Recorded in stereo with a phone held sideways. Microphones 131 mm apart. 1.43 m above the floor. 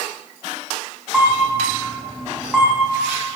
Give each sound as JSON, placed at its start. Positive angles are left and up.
{"t": 1.1, "sound": "a camera shutter", "side_deg": -5, "distance_m": 5.5}